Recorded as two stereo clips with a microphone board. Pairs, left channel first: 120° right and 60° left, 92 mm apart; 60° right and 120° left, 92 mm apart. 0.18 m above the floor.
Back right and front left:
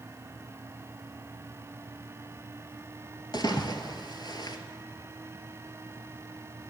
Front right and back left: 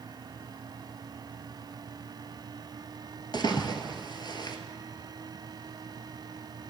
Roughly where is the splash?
Right.